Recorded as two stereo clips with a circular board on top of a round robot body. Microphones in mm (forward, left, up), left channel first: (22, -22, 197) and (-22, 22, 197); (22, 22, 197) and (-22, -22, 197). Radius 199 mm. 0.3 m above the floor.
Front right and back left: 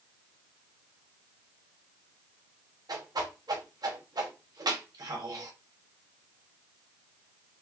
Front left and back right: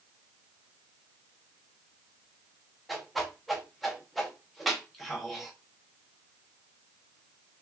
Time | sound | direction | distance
2.9 | a whoosh | 135° left | 0.9 m